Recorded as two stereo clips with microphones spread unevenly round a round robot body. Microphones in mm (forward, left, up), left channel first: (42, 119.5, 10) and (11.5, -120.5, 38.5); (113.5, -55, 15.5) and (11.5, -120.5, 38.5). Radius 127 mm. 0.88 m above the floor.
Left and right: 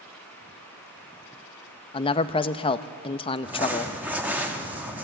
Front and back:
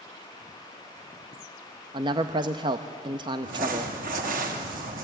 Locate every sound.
1.9 s a man speaking: 145° left, 0.6 m
3.4 s crumpling: 175° left, 1.4 m